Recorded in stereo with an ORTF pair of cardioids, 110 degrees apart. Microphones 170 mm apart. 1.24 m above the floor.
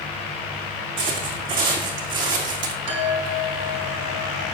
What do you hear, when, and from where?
1.0 s footsteps: 60° right, 4.5 m; by 2.8 s 55° right, 3.5 m
2.9 s a chime: 45° right, 4 m